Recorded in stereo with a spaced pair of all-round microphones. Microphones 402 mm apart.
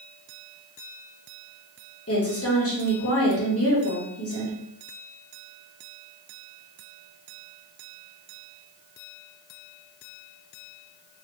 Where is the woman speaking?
35° left (ahead or behind), 1.1 m.